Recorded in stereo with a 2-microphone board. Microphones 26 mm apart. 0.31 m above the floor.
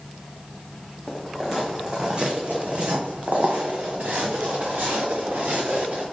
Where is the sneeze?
I don't hear a sneeze.